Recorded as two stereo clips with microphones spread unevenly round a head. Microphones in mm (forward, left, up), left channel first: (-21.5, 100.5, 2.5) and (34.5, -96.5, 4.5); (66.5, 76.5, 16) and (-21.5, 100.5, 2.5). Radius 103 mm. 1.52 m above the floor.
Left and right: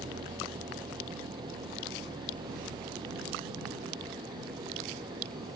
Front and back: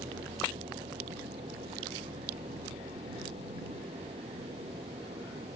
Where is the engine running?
145° right.